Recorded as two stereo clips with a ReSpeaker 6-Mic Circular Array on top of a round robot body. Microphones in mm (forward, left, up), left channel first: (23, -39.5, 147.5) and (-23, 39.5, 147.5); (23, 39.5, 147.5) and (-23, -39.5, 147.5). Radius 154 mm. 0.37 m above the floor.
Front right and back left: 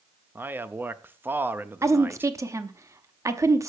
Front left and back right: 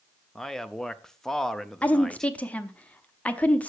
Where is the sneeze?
I don't hear a sneeze.